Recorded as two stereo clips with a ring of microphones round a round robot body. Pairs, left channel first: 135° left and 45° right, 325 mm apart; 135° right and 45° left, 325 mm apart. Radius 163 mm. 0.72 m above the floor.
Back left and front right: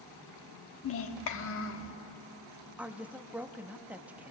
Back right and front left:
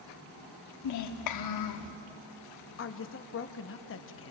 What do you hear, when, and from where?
0.8 s a child speaking: 175° right, 1.0 m
2.8 s a woman speaking: 130° right, 0.9 m